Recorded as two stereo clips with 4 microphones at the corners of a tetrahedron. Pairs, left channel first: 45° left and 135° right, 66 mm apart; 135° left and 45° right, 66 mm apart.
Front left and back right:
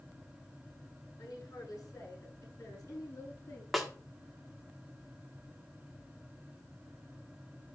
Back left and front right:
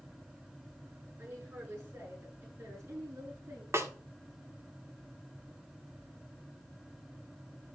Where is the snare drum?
45° right, 1.6 m.